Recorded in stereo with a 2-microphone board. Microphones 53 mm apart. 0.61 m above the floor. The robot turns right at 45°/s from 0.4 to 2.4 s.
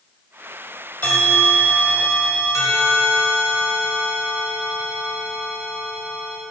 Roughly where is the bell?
Ahead left.